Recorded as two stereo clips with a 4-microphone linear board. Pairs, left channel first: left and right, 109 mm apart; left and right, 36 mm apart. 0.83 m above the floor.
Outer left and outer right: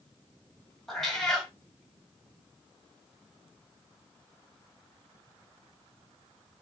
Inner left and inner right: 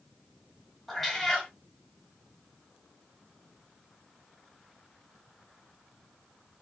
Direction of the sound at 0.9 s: 5° left (ahead or behind).